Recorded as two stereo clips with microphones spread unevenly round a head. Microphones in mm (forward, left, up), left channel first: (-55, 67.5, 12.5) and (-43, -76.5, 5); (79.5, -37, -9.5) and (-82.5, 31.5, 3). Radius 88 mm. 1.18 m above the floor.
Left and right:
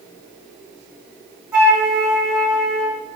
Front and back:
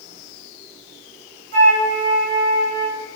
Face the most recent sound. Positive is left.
turn(degrees=-175)